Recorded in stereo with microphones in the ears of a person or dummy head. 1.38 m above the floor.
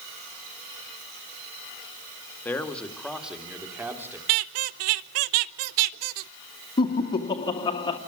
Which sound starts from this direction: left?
Laughter, at 6.8 s.